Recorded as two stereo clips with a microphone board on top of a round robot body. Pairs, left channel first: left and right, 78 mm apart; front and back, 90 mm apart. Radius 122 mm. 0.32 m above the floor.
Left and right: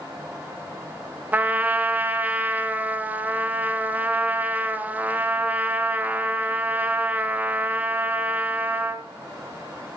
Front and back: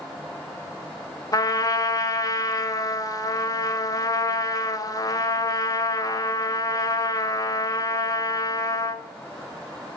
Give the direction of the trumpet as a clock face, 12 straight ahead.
1 o'clock.